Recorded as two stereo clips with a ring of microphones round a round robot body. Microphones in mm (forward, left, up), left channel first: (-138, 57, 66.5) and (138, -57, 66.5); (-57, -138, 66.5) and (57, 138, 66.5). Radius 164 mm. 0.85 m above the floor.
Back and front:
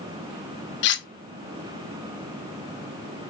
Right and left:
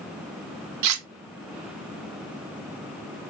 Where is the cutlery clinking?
105° left, 0.6 m.